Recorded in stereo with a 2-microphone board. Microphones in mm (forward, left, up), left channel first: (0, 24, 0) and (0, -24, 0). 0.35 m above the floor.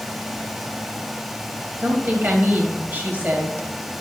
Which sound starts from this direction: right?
A woman speaking, at 1.8 s.